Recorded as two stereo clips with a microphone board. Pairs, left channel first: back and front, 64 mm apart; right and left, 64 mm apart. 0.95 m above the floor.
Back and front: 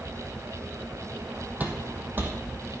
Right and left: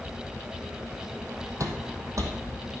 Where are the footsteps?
60° left, 2 m; by 2.7 s 50° left, 3.5 m.